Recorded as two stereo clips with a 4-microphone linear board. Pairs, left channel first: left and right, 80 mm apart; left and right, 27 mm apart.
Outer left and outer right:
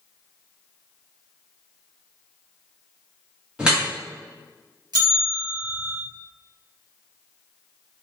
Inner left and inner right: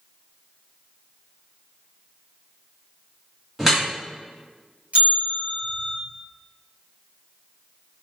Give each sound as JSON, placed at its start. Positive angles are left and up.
{"t": 3.6, "sound": "dripping", "side_deg": -10, "distance_m": 1.1}
{"t": 4.9, "sound": "a bell", "side_deg": -60, "distance_m": 1.2}